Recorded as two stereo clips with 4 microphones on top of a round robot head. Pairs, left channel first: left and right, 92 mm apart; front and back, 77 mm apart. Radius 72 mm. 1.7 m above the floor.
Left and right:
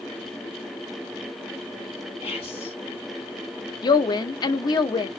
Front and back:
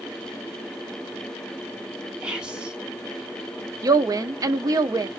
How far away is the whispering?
About 1.4 m.